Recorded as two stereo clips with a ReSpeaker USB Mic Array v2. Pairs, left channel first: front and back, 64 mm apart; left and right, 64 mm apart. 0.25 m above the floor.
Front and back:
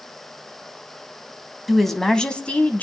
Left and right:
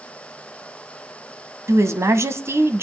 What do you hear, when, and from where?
1.7 s a woman speaking: 90° right, 1.6 m; by 2.8 s 55° right, 1.7 m